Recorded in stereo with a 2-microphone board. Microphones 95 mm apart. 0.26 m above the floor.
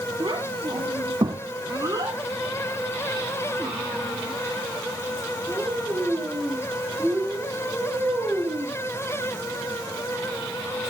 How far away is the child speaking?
About 1.3 m.